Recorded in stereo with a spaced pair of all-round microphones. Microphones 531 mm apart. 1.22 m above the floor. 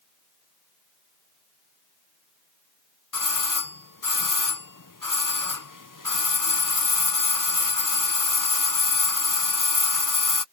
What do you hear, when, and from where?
3.1 s a doorbell: 35° left (ahead or behind)